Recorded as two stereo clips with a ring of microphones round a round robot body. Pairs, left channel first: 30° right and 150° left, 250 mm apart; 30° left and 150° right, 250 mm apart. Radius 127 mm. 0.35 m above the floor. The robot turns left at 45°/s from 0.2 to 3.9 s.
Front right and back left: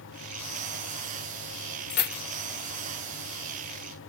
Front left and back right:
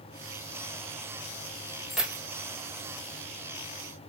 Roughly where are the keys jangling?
Ahead right.